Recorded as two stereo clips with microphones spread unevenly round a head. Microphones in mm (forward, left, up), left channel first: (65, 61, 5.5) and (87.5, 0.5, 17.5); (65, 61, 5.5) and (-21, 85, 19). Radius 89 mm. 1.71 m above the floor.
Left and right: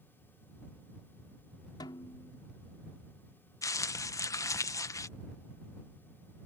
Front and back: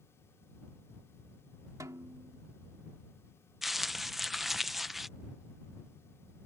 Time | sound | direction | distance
1.8 | a snare drum | 120° left | ?
3.6 | crumpling | 80° left | ?